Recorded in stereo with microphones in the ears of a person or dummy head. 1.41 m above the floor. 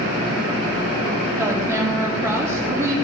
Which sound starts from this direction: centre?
A woman speaking, at 1.4 s.